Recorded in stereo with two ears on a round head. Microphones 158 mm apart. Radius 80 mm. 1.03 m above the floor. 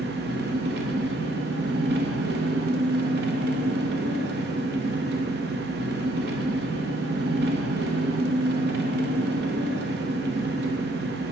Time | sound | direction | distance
0.0 | an engine running | 65° right (ahead or behind) | 0.7 m